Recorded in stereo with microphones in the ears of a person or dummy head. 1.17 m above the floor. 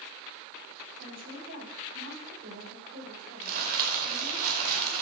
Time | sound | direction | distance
1.0 | a woman speaking | 80° right | 6.5 m
3.4 | crumpling | 55° right (ahead or behind) | 1.9 m